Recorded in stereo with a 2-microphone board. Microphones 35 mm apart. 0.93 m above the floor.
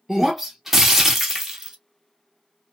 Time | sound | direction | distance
0.1 | breaking glass | 10° right (ahead or behind) | 1.0 m